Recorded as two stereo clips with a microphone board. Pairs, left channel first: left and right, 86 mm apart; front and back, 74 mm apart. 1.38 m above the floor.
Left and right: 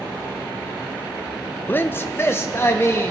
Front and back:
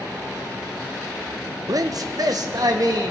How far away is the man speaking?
About 0.6 m.